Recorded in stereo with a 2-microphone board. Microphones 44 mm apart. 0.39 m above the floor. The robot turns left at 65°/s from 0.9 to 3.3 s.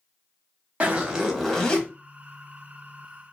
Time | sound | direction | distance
0.8 | a zipper | 150° right | 0.8 m